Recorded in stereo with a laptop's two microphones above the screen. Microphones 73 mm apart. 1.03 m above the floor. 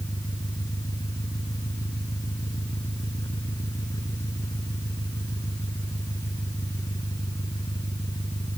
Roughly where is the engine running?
Left.